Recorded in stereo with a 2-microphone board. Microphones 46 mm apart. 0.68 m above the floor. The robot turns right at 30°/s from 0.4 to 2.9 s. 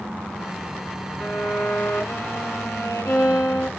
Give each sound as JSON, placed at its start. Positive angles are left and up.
{"t": 1.2, "sound": "a violin", "azimuth_deg": 25, "distance_m": 2.5}